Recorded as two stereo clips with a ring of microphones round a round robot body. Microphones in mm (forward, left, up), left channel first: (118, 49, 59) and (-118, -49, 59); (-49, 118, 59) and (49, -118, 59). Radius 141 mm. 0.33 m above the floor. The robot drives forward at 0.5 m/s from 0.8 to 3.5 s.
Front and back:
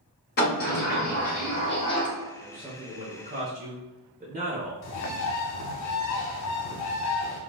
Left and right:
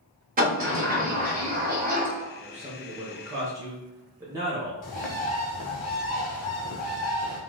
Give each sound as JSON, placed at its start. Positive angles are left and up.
{"t": 0.4, "sound": "a sliding door", "azimuth_deg": -20, "distance_m": 1.4}
{"t": 2.3, "sound": "a man speaking", "azimuth_deg": -75, "distance_m": 1.0}
{"t": 4.8, "sound": "a bird", "azimuth_deg": 50, "distance_m": 0.7}